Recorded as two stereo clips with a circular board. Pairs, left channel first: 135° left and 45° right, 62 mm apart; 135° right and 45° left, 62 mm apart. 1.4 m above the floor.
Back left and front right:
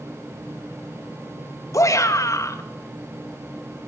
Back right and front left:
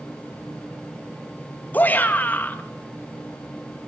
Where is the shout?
165° left, 2.5 m.